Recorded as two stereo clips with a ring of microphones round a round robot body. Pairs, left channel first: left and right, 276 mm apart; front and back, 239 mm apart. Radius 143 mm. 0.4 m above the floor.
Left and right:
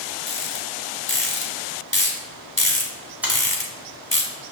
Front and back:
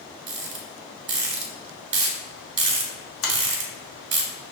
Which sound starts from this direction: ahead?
A finger snap, at 3.2 s.